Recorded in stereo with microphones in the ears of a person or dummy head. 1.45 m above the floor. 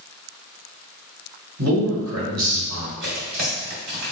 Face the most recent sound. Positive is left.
turn(degrees=-50)  # may be behind; listen again after turning